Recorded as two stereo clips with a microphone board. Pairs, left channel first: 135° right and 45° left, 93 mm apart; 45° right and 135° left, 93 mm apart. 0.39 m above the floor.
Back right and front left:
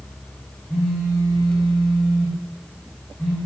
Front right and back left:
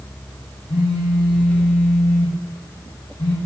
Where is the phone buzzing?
55° right, 8 m.